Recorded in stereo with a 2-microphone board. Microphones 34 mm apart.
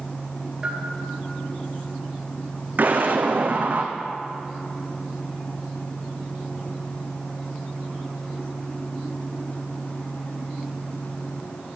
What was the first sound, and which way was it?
A bell, 20° right (ahead or behind).